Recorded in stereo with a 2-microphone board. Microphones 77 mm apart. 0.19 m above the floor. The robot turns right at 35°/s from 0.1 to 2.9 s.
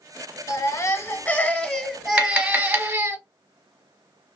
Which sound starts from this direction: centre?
Tapping, at 2.2 s.